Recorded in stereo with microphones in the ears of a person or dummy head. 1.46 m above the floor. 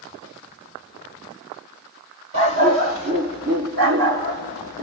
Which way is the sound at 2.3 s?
20° right (ahead or behind).